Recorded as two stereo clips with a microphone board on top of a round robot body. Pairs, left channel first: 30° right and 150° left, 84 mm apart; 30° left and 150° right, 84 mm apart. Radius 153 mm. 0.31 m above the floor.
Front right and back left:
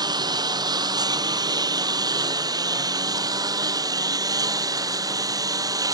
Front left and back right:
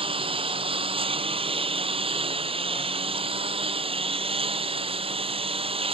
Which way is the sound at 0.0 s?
165° right.